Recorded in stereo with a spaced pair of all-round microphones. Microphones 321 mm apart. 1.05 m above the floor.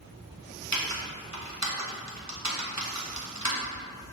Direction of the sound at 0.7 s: 60° right (ahead or behind).